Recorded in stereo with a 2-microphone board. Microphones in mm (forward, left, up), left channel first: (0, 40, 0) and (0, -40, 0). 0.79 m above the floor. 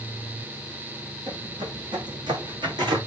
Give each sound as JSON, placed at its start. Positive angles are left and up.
{"t": 1.3, "sound": "footsteps", "side_deg": -65, "distance_m": 1.8}